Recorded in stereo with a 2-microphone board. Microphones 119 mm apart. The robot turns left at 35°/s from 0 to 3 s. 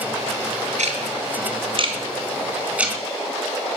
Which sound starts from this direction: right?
Ticking, at 0.8 s.